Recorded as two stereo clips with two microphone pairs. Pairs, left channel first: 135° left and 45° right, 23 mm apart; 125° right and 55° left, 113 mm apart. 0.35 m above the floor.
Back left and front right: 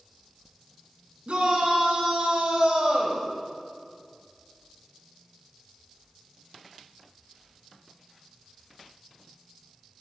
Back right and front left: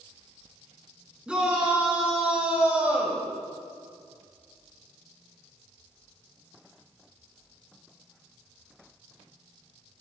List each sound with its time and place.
1.3 s a shout: 25° right, 4 m; by 3.2 s 20° right, 1.8 m